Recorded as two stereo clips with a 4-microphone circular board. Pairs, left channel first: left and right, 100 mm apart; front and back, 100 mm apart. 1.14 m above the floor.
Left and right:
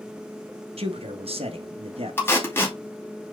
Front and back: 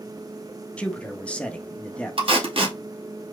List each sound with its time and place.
0.8 s a man speaking: 80° right, 1.3 m
2.2 s tape being pulled: 160° left, 2.5 m